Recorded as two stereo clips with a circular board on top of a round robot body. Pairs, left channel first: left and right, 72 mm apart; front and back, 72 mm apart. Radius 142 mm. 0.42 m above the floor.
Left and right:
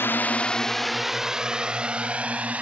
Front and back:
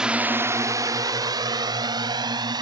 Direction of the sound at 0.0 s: 110° left.